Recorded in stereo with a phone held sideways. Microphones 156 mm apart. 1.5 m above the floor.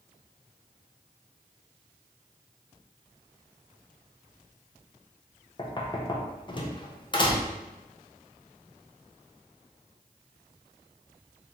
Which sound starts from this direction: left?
Knocking, at 5.6 s.